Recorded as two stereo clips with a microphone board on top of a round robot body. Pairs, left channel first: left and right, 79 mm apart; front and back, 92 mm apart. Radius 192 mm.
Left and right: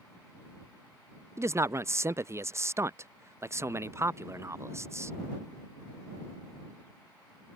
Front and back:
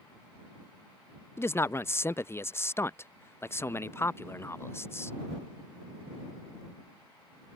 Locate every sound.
1.4 s a man speaking: 50° right